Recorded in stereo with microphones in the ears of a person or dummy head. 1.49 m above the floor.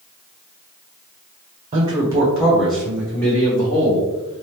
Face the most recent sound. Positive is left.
turn(degrees=25)  # may be behind; listen again after turning